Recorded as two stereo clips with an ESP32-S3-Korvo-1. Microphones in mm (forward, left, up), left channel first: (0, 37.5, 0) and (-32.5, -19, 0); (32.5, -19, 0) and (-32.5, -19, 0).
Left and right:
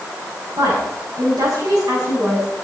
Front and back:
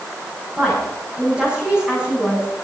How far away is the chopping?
I don't hear chopping.